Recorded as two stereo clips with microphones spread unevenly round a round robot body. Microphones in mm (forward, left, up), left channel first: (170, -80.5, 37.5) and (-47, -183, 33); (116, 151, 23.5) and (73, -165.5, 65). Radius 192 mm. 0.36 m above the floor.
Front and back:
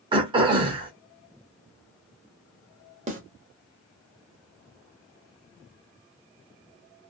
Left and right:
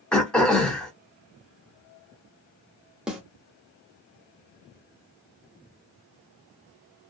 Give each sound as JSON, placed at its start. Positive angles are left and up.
{"t": 0.1, "sound": "throat clearing", "azimuth_deg": 155, "distance_m": 0.9}
{"t": 3.1, "sound": "a snare drum", "azimuth_deg": 165, "distance_m": 0.9}